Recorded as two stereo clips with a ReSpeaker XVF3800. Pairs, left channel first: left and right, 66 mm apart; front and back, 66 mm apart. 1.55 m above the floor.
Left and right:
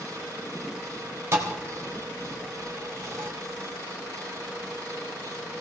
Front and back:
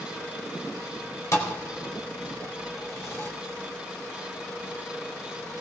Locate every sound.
1.3 s a thud: 45° right, 3.5 m